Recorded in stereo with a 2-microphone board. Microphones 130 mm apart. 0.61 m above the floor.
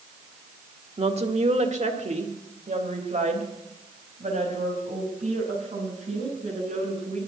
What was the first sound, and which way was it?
A woman speaking, 50° right (ahead or behind).